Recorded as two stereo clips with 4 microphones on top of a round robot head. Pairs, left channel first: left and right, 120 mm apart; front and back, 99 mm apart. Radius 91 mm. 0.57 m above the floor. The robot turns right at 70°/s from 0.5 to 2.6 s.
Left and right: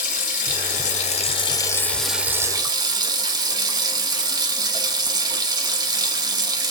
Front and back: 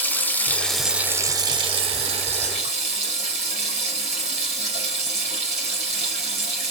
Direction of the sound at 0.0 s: 70° left.